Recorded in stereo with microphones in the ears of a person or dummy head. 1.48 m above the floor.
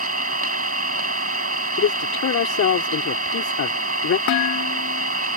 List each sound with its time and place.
0.0 s an engine running: 50° right (ahead or behind)
1.8 s a man speaking: 70° left (ahead or behind)
4.3 s dishes clattering: 80° left